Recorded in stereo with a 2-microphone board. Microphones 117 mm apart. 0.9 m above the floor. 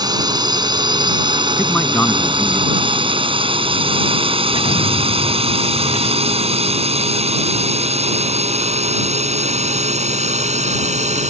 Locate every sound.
0.0 s a drone: 35° right (ahead or behind); by 11.3 s 75° right (ahead or behind)
1.6 s a man speaking: 10° left (ahead or behind)
4.5 s an explosion: 80° left